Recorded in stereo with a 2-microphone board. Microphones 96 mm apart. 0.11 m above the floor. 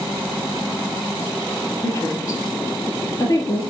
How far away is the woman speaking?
About 2 m.